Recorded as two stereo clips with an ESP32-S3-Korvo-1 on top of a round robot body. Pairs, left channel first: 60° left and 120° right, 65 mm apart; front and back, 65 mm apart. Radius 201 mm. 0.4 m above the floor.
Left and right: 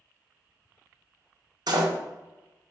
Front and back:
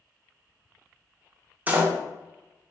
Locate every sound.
1.7 s a door slam: 115° right, 1.4 m